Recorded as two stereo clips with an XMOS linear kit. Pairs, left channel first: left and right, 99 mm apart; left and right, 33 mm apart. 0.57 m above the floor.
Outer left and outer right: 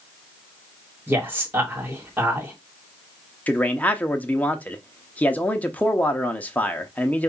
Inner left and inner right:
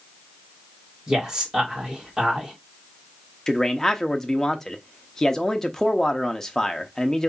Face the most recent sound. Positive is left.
turn(degrees=15)  # may be behind; listen again after turning